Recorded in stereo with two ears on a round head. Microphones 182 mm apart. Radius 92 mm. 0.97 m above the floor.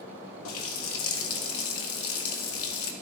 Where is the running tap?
80° left, 0.8 m.